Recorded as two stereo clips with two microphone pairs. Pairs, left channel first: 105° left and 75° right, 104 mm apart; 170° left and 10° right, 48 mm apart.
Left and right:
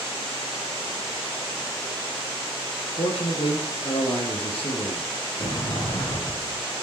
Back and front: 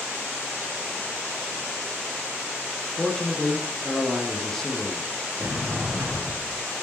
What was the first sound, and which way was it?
A man speaking, 90° left.